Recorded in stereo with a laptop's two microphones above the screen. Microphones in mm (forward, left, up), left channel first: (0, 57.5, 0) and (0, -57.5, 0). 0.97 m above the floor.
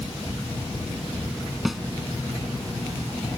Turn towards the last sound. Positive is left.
turn(degrees=0)  # may be behind; listen again after turning